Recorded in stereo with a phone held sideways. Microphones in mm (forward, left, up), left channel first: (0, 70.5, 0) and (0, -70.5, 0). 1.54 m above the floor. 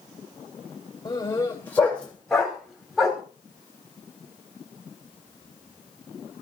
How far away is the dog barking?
About 2.5 m.